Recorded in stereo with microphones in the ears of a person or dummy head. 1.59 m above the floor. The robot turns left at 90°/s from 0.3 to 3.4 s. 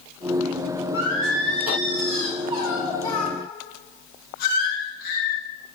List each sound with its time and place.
0.9 s singing: 15° right, 2 m; by 5.4 s 125° left, 2 m